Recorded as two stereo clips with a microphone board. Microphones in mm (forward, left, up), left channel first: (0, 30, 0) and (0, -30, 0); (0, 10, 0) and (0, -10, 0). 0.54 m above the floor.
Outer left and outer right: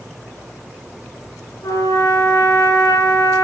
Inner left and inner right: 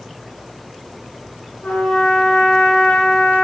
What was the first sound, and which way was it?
A trumpet, 85° left.